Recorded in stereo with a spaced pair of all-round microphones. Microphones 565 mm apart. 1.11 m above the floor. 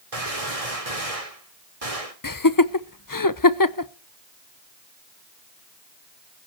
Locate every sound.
0.1 s a gunshot: 85° right, 3 m
2.2 s laughter: 35° left (ahead or behind), 0.9 m